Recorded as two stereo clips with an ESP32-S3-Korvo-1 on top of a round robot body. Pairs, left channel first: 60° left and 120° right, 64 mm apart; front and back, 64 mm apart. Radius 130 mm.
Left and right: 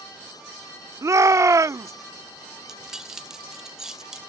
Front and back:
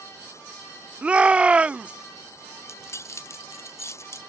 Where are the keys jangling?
40° right.